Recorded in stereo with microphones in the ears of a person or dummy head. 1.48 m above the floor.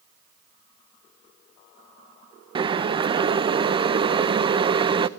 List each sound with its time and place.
2.5 s boiling: 25° right (ahead or behind), 0.7 m